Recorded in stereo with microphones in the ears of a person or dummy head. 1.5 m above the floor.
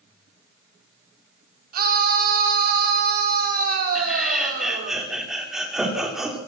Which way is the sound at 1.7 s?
50° right (ahead or behind).